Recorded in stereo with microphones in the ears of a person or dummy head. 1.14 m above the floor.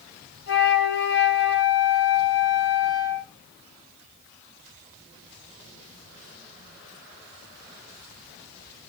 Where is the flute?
60° left (ahead or behind), 2.5 m.